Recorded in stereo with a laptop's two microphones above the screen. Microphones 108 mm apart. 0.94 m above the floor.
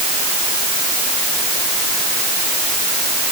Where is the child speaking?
I don't hear a child speaking.